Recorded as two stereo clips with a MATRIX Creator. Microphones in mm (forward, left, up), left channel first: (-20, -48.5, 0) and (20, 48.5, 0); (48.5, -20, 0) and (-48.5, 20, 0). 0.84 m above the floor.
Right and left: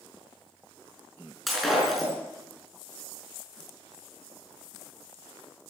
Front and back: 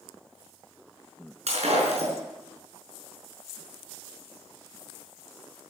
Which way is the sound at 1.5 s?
155° left.